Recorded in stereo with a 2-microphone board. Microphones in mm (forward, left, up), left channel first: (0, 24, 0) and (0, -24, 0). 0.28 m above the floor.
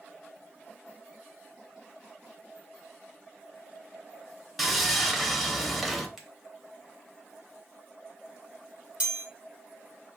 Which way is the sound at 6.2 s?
10° right (ahead or behind).